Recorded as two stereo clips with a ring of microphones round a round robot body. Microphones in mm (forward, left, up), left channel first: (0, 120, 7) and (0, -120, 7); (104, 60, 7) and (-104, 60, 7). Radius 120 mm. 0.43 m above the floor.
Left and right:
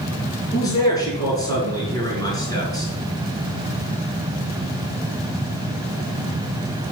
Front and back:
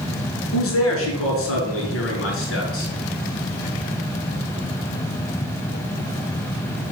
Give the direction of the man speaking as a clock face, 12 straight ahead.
12 o'clock.